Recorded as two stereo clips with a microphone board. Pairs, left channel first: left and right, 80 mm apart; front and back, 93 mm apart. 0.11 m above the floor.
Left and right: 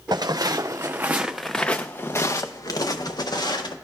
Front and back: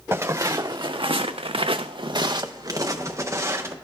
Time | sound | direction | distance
0.1 | footsteps | 120° right | 0.8 m